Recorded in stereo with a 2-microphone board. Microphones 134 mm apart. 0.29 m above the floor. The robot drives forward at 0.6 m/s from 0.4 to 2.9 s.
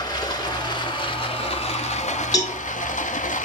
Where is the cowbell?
30° left (ahead or behind), 1.6 m.